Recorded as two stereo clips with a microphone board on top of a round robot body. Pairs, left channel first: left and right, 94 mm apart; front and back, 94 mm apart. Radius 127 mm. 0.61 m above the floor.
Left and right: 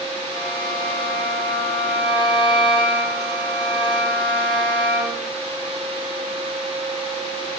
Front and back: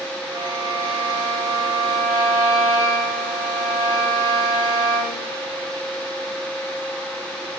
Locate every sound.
0.3 s a violin: 130° left, 6 m